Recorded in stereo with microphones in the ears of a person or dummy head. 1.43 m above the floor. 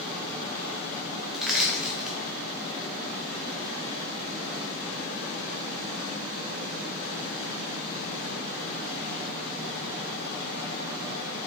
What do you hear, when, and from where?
1.3 s crushing: centre (ahead or behind), 0.7 m